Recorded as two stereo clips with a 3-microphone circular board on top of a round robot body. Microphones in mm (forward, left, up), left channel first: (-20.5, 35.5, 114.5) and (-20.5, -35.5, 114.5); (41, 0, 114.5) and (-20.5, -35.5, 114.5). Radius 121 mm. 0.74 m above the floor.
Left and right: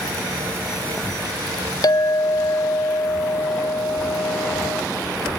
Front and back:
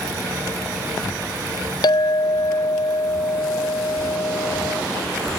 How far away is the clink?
About 0.8 m.